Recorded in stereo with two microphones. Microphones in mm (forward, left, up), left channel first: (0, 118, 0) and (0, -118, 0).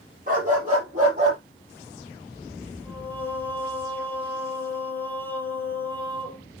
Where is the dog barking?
35° right (ahead or behind), 6 m; by 1.4 s 30° right (ahead or behind), 6.5 m.